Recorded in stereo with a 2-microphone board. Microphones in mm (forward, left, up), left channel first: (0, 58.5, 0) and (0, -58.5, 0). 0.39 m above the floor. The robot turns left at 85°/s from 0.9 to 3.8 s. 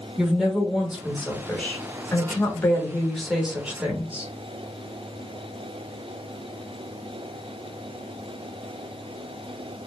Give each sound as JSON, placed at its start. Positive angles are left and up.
{"t": 0.2, "sound": "a woman speaking", "side_deg": -5, "distance_m": 0.9}